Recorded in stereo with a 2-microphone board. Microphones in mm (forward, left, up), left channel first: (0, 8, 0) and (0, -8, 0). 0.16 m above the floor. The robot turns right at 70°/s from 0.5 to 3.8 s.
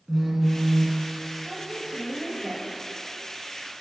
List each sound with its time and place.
0.1 s a phone buzzing: 160° left, 3 m; by 1.0 s 165° right, 3 m
1.4 s a woman speaking: 145° right, 3 m; by 2.6 s 60° right, 3 m